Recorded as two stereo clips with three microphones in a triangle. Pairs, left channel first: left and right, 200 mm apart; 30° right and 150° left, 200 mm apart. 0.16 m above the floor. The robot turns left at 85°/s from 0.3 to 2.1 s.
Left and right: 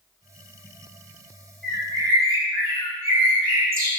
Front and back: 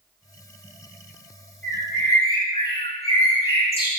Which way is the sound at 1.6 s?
50° right.